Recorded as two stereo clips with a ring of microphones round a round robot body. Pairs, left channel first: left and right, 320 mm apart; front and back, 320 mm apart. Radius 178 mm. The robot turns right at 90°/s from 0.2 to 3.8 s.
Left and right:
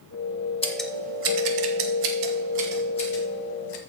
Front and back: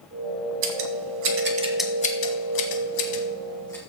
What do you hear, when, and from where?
0.6 s scissors: 165° left, 1.5 m; by 3.8 s 90° left, 1.5 m